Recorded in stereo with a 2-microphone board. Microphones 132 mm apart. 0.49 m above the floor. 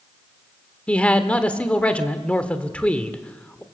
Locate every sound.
0.9 s a man speaking: 10° left (ahead or behind), 1.7 m